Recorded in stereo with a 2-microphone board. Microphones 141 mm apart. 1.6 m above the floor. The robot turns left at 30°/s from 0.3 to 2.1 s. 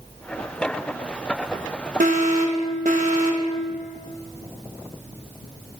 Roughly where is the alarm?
Right.